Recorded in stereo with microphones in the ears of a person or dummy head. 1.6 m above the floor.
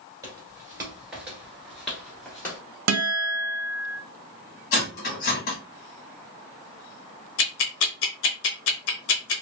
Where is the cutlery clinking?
50° left (ahead or behind), 1.3 m.